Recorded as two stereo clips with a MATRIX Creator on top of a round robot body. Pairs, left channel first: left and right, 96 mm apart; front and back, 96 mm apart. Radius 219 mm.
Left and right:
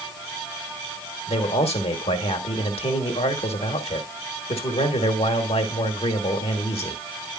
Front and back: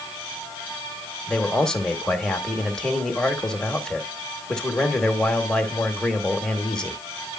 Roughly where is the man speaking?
Left.